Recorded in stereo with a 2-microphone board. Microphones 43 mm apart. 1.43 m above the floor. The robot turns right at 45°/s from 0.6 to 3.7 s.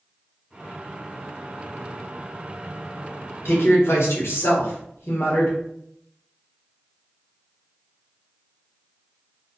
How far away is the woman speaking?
About 0.9 m.